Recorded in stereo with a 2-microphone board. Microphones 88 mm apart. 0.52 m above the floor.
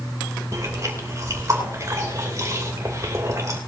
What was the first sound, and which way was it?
Chewing, 40° right (ahead or behind).